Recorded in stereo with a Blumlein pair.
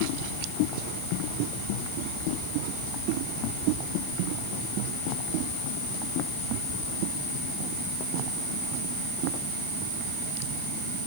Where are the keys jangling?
I don't hear keys jangling.